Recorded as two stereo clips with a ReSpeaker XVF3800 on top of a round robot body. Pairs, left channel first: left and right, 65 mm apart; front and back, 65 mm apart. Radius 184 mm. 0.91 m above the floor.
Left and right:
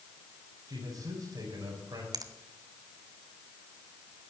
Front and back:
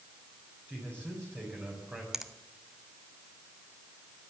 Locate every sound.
0.7 s a man speaking: 120° right, 4 m
2.1 s a finger snap: 95° right, 1.2 m